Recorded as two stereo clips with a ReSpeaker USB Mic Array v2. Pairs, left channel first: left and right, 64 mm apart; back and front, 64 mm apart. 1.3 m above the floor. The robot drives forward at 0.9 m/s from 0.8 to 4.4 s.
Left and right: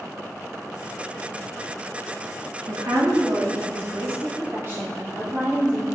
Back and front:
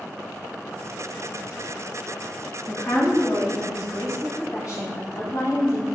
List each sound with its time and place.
2.7 s a woman speaking: 125° right, 2.5 m; by 5.8 s 145° right, 3.5 m